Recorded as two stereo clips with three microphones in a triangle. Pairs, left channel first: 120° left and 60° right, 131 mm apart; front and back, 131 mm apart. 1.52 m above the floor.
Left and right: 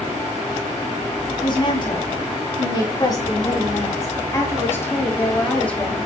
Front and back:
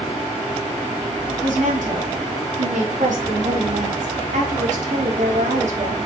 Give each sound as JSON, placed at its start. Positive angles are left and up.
{"t": 1.4, "sound": "a woman speaking", "azimuth_deg": 170, "distance_m": 4.0}